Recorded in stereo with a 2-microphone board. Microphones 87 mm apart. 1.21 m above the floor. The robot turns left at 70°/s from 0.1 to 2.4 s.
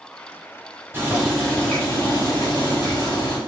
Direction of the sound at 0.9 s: 150° right.